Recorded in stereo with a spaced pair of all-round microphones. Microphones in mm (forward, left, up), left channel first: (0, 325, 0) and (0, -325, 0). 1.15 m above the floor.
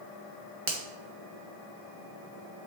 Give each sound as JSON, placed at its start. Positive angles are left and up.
{"t": 0.7, "sound": "a finger snap", "side_deg": -50, "distance_m": 1.2}